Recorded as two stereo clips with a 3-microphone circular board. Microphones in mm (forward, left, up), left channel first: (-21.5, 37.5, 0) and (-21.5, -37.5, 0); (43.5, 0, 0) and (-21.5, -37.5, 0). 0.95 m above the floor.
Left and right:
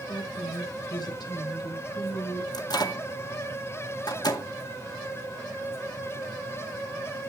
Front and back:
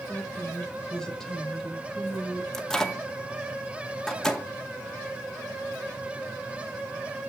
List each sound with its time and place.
0.1 s a woman speaking: 105° left, 3.5 m; by 2.4 s 120° left, 4 m
2.5 s a microwave: 115° left, 1.9 m